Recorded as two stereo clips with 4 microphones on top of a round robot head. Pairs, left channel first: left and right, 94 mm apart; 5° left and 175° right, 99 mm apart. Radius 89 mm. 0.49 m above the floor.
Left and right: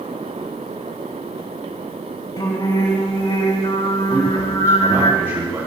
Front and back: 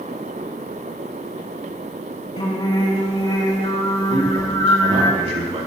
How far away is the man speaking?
About 4.5 m.